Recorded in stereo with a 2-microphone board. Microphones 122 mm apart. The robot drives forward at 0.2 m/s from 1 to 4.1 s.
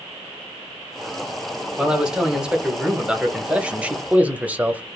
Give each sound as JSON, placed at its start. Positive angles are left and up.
{"t": 1.8, "sound": "a man speaking", "side_deg": -5, "distance_m": 0.9}